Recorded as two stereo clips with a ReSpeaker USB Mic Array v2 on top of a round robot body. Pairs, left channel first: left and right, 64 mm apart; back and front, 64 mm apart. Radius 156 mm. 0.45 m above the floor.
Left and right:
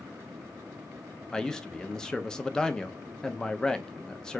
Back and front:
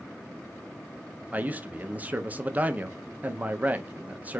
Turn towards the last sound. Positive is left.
turn(degrees=20)